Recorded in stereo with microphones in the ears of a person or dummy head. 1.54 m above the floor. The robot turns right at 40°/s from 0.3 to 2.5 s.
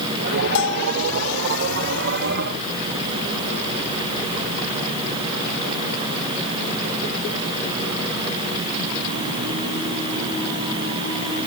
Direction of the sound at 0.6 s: 60° left (ahead or behind).